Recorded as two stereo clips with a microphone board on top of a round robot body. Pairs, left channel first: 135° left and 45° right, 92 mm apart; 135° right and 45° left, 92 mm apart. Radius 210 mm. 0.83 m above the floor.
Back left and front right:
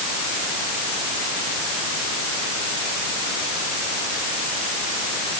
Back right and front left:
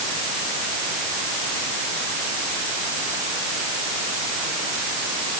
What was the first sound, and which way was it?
Only background noise.